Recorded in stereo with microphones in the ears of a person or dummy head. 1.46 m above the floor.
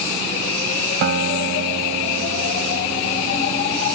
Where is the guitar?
55° right (ahead or behind).